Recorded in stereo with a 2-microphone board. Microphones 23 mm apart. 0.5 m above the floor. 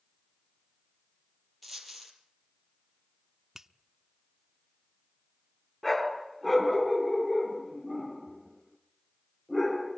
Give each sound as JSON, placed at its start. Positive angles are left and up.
{"t": 1.6, "sound": "a dropped coin", "side_deg": 0, "distance_m": 6.0}
{"t": 3.5, "sound": "a finger snap", "side_deg": -20, "distance_m": 1.0}
{"t": 5.8, "sound": "a dog barking", "side_deg": 10, "distance_m": 3.5}